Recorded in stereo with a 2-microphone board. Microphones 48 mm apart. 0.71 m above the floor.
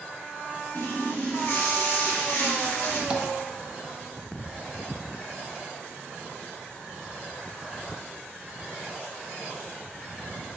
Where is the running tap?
70° left (ahead or behind), 1.4 m.